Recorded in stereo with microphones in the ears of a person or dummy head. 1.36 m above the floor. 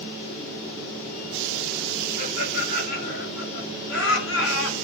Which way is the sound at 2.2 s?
45° left (ahead or behind).